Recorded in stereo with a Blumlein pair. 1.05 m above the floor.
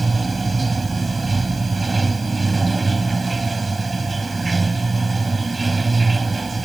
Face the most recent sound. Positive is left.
turn(degrees=-10)